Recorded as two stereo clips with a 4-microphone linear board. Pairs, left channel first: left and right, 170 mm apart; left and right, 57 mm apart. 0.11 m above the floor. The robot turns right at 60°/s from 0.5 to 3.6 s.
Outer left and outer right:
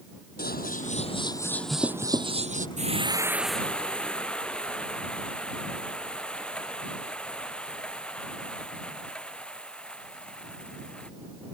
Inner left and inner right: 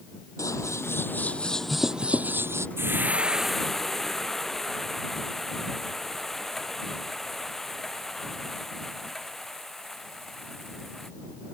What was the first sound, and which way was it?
Scissors, 105° left.